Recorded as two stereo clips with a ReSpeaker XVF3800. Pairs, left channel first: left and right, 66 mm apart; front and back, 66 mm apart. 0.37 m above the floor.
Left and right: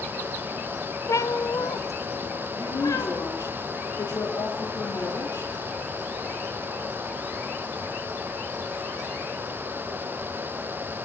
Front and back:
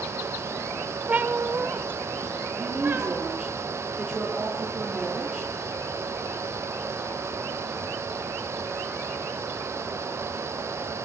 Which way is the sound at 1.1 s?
115° left.